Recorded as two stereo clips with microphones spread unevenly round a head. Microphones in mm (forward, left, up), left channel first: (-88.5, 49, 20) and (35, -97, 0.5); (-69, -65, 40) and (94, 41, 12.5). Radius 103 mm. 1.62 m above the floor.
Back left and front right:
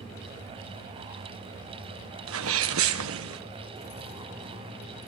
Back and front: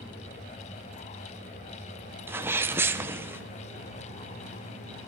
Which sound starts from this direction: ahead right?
A sneeze, at 2.3 s.